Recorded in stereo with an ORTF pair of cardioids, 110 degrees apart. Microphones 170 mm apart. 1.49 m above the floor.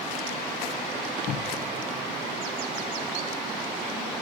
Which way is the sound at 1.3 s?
60° left.